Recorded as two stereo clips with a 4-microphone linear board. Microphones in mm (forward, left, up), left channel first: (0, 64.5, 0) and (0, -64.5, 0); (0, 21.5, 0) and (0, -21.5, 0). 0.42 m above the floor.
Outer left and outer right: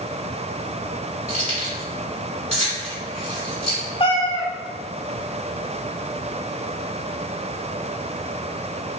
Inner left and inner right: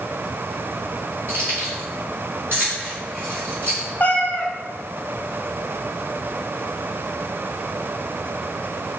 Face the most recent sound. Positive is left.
turn(degrees=50)  # may be behind; listen again after turning